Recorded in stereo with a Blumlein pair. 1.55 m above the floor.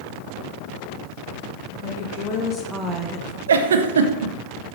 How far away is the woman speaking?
About 1.6 m.